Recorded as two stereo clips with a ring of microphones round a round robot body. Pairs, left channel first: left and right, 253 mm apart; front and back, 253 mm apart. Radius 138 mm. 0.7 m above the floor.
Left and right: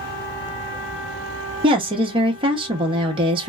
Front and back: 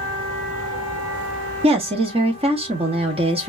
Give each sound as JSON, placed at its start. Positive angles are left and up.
{"t": 1.6, "sound": "a woman speaking", "azimuth_deg": -140, "distance_m": 0.6}